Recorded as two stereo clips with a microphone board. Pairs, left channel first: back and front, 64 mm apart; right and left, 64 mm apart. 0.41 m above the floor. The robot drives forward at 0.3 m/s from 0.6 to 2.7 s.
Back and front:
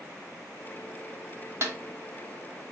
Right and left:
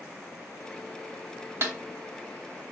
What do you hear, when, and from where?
1.6 s a snare drum: 40° left, 0.7 m; by 1.8 s 45° left, 0.7 m